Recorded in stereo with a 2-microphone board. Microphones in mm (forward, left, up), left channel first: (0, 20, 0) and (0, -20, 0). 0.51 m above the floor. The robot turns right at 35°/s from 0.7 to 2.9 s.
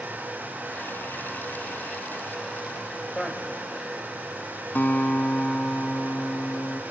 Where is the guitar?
50° left (ahead or behind), 1.1 m.